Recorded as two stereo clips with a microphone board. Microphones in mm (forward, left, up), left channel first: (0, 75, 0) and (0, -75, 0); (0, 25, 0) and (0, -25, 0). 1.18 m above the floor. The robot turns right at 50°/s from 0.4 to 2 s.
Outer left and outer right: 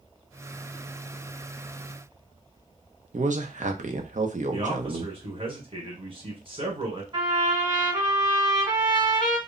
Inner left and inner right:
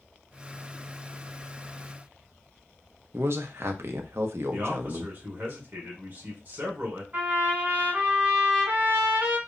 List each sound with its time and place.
3.1 s a man speaking: 55° right (ahead or behind), 0.5 m
4.5 s a man speaking: 40° right (ahead or behind), 1.2 m
7.1 s a trumpet: 35° right (ahead or behind), 1.5 m